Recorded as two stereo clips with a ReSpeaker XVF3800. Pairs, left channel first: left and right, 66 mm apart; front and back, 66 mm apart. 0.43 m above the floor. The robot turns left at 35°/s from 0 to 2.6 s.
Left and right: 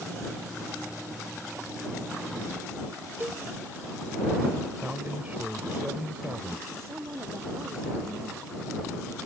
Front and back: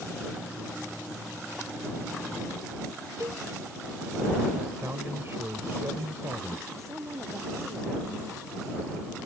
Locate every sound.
3.2 s a cowbell: 145° right
4.8 s a man speaking: 150° right
6.7 s a woman speaking: 135° right